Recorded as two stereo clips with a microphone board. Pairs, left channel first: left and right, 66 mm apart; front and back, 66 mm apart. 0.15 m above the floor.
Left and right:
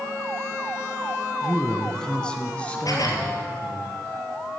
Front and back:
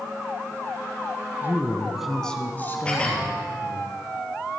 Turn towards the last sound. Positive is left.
turn(degrees=70)